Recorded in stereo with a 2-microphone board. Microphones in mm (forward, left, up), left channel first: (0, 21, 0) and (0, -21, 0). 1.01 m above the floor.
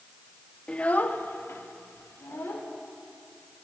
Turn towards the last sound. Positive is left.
turn(degrees=75)  # may be behind; listen again after turning